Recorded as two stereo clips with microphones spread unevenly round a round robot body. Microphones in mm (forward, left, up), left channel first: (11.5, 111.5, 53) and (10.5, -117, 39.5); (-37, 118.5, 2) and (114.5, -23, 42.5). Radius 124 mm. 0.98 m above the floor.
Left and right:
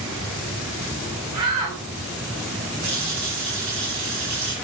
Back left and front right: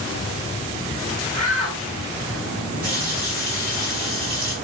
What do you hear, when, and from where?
1.3 s a shout: 90° right, 5.5 m
2.8 s a running tap: 100° right, 8 m